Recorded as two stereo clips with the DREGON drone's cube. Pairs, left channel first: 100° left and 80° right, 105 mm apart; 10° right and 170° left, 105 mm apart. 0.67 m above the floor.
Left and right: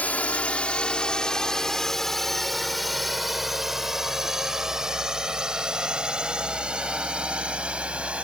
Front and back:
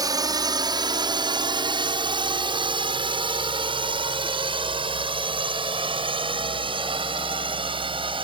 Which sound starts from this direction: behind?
A drone, at 0.0 s.